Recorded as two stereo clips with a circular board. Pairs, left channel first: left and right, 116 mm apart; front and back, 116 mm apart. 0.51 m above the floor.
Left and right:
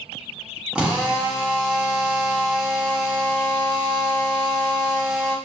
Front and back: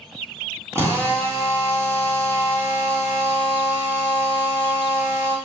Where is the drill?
160° right, 1.0 m.